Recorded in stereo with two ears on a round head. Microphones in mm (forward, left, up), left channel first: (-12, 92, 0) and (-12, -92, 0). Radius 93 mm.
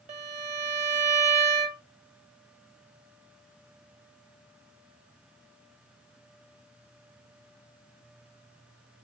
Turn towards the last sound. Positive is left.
turn(degrees=-30)  # may be behind; listen again after turning